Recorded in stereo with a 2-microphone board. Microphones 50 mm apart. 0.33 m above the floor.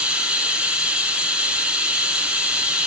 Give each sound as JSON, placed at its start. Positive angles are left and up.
{"t": 0.0, "sound": "running water", "side_deg": -20, "distance_m": 1.7}